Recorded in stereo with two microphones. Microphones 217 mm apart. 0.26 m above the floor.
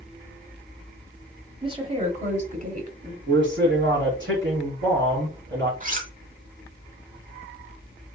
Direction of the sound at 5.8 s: 40° right (ahead or behind).